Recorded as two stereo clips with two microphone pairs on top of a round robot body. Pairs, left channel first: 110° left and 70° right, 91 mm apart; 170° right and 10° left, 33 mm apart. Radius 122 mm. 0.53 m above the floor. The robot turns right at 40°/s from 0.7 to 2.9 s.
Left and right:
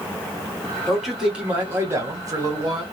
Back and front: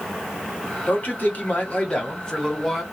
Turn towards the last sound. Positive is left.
turn(degrees=-75)